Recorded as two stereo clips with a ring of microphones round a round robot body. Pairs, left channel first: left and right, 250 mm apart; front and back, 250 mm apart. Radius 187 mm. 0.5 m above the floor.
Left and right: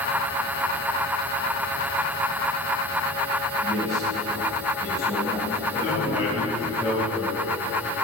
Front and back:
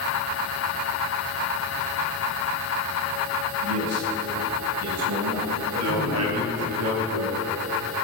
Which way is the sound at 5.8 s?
165° right.